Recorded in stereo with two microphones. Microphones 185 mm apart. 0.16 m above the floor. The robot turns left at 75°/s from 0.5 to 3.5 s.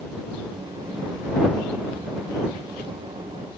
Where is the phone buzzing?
I don't hear a phone buzzing.